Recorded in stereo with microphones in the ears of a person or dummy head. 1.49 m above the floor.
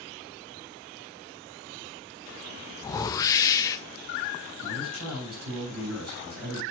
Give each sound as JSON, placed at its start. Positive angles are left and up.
{"t": 2.8, "sound": "a whoosh", "side_deg": 20, "distance_m": 0.9}
{"t": 4.6, "sound": "a man speaking", "side_deg": -75, "distance_m": 5.5}